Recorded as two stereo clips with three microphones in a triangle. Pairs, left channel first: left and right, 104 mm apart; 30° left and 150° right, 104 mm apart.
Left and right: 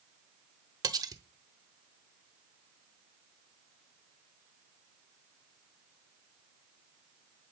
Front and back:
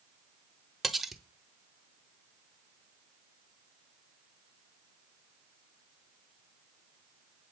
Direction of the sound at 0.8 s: 60° right.